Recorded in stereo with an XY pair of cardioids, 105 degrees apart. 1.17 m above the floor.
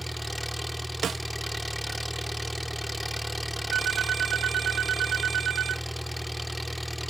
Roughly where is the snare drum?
Ahead right.